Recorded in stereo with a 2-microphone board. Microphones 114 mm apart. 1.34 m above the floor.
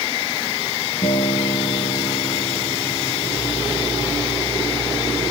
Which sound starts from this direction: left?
A guitar, at 1.0 s.